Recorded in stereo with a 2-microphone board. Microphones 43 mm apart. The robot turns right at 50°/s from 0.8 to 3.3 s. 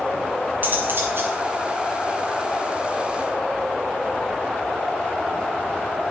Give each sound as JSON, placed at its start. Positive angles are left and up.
{"t": 0.6, "sound": "cutlery clinking", "side_deg": -45, "distance_m": 2.0}